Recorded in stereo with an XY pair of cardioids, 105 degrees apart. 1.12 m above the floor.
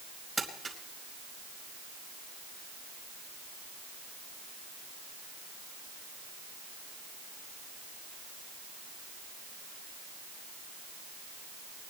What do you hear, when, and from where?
0.4 s crumpling: 30° right, 4.5 m